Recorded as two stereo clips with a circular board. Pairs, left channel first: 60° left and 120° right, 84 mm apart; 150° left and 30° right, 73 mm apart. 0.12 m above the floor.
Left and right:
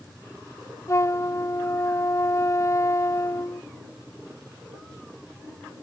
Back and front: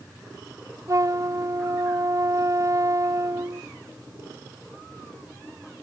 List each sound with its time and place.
0.9 s a flute: 10° left